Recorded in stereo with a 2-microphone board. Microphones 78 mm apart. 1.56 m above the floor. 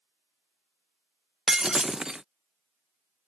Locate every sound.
1.5 s breaking glass: 10° right (ahead or behind)